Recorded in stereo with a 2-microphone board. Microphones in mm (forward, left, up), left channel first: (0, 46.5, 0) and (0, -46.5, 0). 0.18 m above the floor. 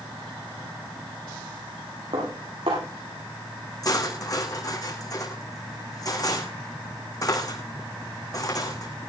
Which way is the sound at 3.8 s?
40° left (ahead or behind).